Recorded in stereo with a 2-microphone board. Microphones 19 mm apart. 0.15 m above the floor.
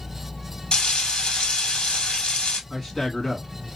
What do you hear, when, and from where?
0.7 s frying: 50° left (ahead or behind), 1.6 m
2.7 s a man speaking: 25° left (ahead or behind), 1.7 m